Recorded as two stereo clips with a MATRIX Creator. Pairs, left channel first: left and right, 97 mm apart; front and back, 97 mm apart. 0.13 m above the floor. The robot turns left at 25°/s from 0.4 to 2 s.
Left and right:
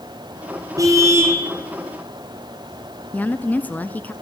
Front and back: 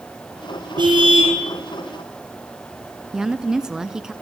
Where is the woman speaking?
110° left, 1.0 m.